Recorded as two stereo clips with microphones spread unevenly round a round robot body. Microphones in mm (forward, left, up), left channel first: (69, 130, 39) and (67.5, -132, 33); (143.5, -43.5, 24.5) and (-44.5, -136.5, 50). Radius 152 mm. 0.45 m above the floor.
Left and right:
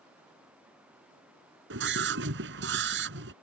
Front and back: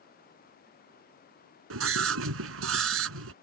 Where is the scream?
145° right.